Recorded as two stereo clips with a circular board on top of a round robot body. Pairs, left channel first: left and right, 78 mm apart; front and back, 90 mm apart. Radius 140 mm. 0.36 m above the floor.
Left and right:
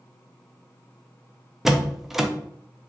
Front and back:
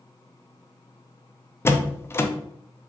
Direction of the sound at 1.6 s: 10° right.